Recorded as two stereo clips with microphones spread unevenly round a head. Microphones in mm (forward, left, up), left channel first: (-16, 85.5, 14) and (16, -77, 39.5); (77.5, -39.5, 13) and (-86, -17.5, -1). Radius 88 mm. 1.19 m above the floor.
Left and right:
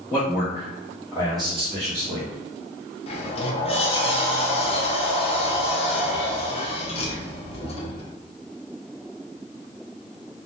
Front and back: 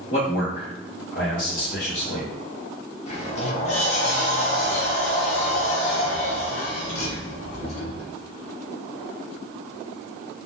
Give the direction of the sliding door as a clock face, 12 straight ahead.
10 o'clock.